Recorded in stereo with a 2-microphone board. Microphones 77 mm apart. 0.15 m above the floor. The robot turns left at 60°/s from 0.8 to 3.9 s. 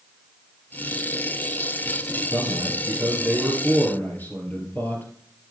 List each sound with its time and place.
2.3 s a man speaking: 105° right, 3 m; by 5.0 s 155° left, 3 m